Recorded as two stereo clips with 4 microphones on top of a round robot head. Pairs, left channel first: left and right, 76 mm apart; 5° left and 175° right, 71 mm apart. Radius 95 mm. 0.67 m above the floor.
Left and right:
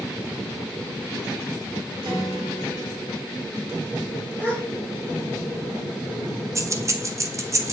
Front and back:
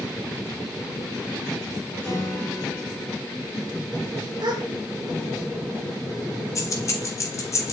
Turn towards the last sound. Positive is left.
turn(degrees=-40)